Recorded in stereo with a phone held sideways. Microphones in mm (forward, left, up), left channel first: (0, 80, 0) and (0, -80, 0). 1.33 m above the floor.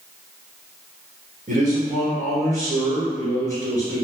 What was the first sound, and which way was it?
A man speaking, 55° right (ahead or behind).